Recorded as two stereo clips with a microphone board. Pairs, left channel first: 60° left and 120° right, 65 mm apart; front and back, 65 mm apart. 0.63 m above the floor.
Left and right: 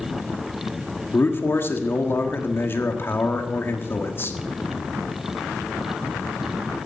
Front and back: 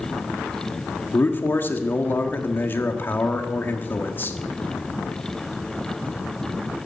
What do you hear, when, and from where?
1.1 s a man speaking: 35° left, 1.4 m